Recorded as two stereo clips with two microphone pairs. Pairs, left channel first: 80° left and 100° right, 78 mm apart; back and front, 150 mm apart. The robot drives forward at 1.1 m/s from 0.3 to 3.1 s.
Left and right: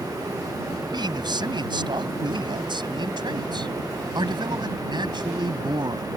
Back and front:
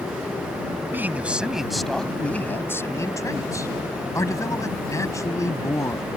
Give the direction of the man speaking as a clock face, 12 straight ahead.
3 o'clock.